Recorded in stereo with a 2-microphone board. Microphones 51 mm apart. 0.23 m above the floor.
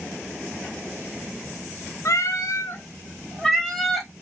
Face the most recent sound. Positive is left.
turn(degrees=-5)  # may be behind; listen again after turning